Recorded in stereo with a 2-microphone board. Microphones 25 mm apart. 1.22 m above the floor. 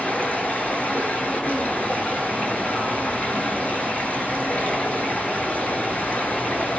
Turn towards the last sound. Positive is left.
turn(degrees=65)  # may be behind; listen again after turning